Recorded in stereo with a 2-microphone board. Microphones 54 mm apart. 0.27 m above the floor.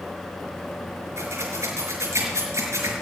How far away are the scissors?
About 4.5 m.